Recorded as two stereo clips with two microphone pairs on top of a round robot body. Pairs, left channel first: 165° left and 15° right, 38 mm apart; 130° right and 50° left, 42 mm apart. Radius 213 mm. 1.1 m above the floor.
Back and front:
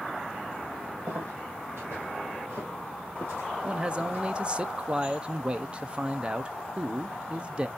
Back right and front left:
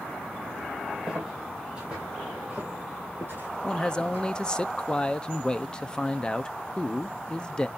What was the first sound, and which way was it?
Footsteps, 25° right.